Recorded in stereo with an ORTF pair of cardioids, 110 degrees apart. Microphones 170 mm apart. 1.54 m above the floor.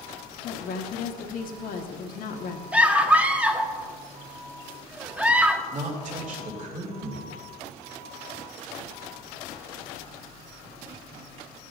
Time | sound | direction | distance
0.4 | a woman speaking | 60° left | 1.3 m
2.7 | a scream | 10° right | 1.3 m
5.7 | a woman speaking | 50° right | 2.5 m